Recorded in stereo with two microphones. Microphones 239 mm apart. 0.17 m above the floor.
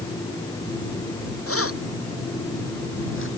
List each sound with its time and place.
1.5 s keys jangling: 70° left (ahead or behind); by 3.3 s 55° left (ahead or behind)